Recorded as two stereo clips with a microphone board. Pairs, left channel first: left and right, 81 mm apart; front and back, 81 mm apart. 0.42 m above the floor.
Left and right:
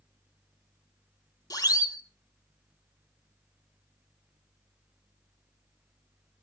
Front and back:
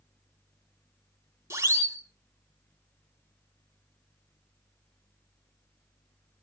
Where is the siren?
130° left, 3.5 m.